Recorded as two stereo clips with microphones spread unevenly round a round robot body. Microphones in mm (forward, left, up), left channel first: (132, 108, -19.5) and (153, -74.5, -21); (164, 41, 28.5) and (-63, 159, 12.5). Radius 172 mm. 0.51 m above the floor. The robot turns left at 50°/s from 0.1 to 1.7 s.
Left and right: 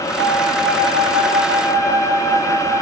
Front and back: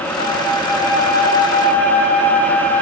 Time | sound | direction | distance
0.2 | a flute | 95° right | 6 m